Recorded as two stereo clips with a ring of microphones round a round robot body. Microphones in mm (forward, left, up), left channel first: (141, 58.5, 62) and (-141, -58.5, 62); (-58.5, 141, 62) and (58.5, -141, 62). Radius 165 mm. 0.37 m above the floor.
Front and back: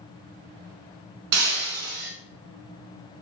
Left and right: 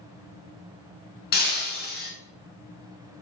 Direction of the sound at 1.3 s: 175° left.